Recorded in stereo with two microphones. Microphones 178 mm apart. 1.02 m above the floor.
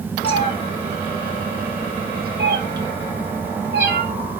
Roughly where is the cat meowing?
Left.